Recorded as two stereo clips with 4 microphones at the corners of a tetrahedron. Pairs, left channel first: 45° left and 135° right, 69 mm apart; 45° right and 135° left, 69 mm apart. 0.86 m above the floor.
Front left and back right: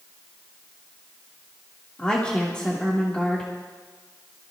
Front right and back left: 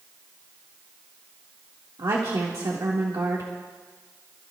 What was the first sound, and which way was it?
A woman speaking, 120° left.